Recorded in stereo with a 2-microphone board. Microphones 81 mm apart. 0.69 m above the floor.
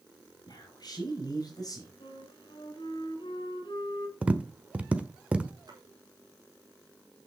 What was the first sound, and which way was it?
A man speaking, 55° left (ahead or behind).